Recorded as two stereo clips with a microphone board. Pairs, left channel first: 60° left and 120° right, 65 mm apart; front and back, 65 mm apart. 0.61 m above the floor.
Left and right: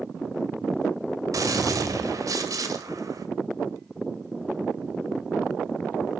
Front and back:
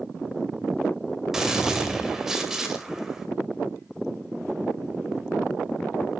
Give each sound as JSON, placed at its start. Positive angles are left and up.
{"t": 1.3, "sound": "a gunshot", "azimuth_deg": -100, "distance_m": 2.0}